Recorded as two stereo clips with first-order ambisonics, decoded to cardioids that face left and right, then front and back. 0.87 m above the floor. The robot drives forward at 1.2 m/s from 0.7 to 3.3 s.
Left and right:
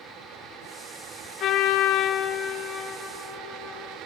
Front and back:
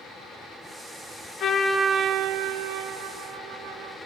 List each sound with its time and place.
1.4 s a trumpet: 45° left, 0.7 m; by 4.0 s 165° left, 1.9 m